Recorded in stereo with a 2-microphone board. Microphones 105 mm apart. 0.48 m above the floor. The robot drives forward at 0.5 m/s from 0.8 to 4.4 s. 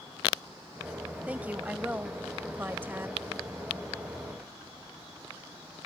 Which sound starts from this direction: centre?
A woman speaking, at 1.3 s.